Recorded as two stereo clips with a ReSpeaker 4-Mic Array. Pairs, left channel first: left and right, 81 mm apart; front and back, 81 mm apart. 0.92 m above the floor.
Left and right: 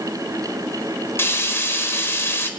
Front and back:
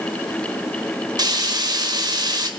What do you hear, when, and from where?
1.2 s frying: 150° left, 1.4 m